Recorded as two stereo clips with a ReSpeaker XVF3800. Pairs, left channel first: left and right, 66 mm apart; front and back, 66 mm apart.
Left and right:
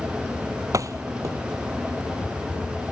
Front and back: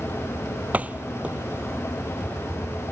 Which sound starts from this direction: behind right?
A door slam, at 0.7 s.